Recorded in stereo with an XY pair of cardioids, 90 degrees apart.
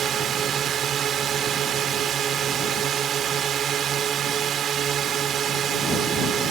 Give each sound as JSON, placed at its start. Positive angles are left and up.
{"t": 0.0, "sound": "a drone", "azimuth_deg": -70}